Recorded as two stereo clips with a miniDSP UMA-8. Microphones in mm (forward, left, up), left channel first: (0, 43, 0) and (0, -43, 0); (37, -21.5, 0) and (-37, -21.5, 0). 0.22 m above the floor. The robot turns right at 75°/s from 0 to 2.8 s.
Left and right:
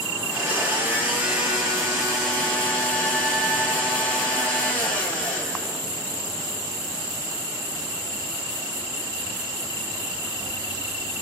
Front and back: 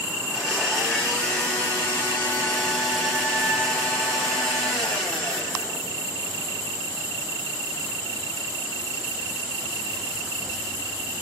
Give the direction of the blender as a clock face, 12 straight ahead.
4 o'clock.